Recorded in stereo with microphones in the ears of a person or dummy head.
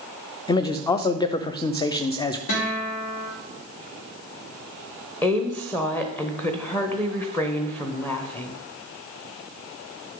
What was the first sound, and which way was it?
A man speaking, 20° left (ahead or behind).